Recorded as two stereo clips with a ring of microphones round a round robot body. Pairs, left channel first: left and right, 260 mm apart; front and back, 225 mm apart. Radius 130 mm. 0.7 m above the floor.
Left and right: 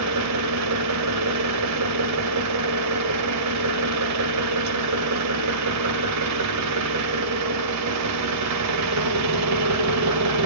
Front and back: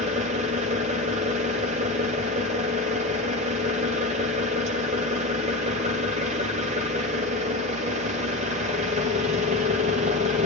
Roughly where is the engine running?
Behind right.